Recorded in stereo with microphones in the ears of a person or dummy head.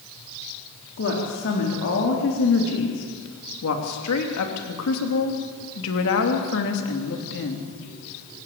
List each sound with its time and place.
1.0 s a woman speaking: 55° left (ahead or behind), 4 m